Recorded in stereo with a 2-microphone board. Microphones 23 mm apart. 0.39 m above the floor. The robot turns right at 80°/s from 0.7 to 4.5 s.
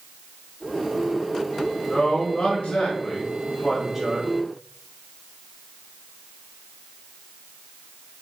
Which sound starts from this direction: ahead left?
A man speaking, at 1.9 s.